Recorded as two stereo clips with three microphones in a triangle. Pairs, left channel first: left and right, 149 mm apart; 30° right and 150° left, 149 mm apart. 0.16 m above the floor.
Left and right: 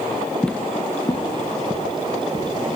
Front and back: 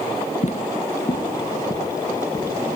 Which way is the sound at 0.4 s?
5° left.